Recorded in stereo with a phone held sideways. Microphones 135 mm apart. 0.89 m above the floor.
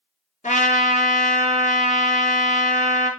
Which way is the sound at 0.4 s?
70° left (ahead or behind).